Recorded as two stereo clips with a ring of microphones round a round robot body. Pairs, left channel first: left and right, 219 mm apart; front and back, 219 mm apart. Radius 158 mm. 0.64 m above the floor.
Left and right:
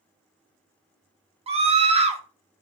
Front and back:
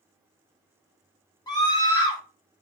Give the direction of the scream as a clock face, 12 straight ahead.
2 o'clock.